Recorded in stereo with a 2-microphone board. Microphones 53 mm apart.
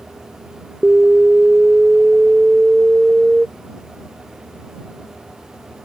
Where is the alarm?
15° right (ahead or behind).